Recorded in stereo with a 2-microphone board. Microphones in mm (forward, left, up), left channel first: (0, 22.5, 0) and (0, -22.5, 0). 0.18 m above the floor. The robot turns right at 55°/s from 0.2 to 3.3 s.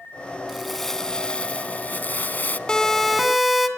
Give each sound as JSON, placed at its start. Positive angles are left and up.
{"t": 0.5, "sound": "crumpling", "azimuth_deg": -10, "distance_m": 0.7}
{"t": 2.7, "sound": "a siren", "azimuth_deg": 150, "distance_m": 2.0}